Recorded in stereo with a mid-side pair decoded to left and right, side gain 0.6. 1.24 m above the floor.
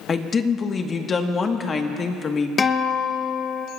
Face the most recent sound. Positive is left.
turn(degrees=25)